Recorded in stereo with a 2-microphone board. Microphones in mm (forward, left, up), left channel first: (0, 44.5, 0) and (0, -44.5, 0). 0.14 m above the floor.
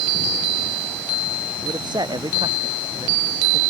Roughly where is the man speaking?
Right.